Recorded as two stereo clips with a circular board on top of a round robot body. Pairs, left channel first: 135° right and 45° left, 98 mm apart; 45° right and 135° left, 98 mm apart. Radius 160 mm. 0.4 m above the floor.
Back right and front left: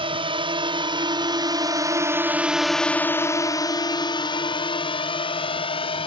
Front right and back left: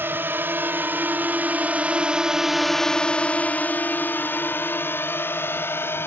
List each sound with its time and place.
0.0 s a drone: 65° left; by 6.1 s 110° right